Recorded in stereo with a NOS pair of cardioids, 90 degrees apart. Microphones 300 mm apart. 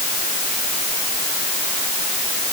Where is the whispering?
I don't hear whispering.